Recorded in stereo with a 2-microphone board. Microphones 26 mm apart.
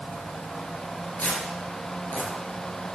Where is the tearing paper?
70° left (ahead or behind), 3.5 m.